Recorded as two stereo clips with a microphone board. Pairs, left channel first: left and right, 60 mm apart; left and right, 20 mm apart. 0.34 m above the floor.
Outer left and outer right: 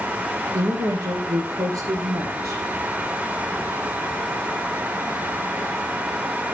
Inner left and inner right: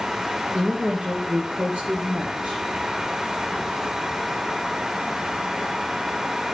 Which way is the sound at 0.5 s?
85° right.